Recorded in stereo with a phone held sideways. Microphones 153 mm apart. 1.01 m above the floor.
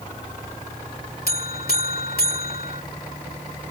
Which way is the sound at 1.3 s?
85° left.